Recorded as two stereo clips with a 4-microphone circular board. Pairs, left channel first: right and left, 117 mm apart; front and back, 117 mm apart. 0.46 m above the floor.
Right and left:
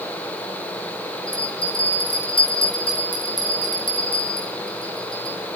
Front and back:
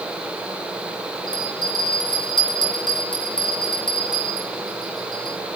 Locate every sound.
1.3 s a bell: 50° right, 5.5 m